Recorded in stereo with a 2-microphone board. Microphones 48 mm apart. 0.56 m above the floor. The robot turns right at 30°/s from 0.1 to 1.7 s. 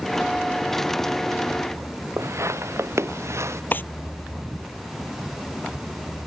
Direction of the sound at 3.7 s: 40° left (ahead or behind).